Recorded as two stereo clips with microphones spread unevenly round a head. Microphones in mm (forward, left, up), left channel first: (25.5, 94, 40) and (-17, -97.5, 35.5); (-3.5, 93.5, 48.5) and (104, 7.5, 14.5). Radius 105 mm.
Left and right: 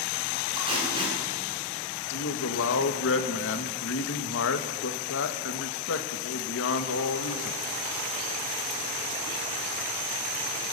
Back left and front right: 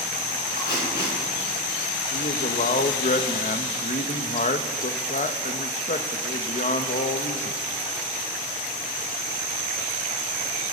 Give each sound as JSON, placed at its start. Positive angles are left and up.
{"t": 0.6, "sound": "tape being pulled", "azimuth_deg": -170, "distance_m": 8.0}
{"t": 2.1, "sound": "a man speaking", "azimuth_deg": 105, "distance_m": 2.0}